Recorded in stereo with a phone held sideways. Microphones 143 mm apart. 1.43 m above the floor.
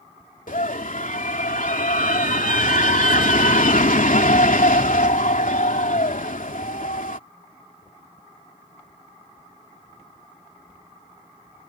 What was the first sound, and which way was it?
A scream, 70° left (ahead or behind).